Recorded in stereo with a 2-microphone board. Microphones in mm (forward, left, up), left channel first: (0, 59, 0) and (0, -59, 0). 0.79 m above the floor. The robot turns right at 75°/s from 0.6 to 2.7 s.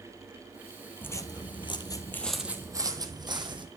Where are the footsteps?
15° left (ahead or behind), 1.0 m; by 3.7 s 40° right (ahead or behind), 1.8 m.